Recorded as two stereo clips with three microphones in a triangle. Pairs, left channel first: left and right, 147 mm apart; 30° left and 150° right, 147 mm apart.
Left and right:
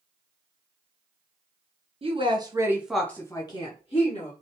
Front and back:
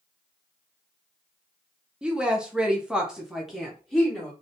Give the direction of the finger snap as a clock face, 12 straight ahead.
I don't hear a finger snap.